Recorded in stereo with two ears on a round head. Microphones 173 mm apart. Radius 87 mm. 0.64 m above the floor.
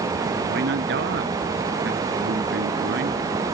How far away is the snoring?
No snoring in this recording.